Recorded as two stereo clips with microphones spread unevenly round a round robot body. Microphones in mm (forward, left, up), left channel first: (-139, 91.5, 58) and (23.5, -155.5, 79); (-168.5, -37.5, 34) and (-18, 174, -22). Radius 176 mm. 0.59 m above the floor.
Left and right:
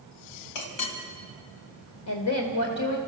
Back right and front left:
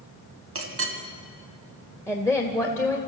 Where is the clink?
90° left, 2.5 m.